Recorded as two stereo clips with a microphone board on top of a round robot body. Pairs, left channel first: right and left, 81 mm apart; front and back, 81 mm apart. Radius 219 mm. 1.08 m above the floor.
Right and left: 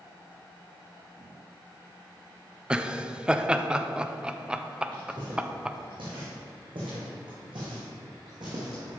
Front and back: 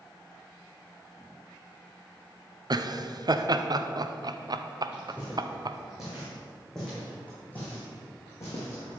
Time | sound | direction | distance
2.7 | laughter | 165° left | 0.8 m
4.9 | footsteps | 110° left | 3.5 m